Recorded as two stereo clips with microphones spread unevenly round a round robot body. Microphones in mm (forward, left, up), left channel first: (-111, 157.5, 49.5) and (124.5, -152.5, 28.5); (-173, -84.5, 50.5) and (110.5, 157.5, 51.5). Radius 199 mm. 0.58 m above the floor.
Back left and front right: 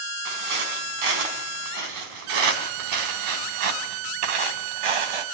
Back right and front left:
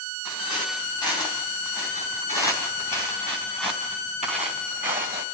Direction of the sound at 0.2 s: 60° right.